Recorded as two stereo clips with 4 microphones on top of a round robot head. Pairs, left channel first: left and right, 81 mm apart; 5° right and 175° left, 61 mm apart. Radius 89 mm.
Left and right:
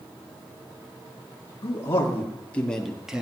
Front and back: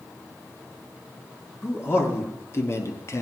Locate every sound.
1.6 s a man speaking: 40° left, 2 m; by 3.2 s 15° right, 1.4 m